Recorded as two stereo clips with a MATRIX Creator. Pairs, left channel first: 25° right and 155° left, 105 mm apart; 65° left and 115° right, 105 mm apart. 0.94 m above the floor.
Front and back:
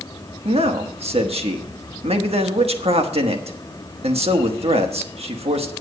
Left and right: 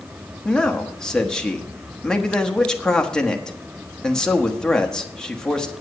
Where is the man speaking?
150° left, 1.2 m.